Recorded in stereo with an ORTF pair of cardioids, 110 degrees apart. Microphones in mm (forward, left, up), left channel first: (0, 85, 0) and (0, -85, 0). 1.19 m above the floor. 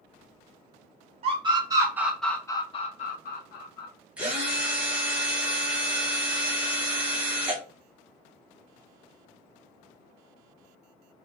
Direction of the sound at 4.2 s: 5° right.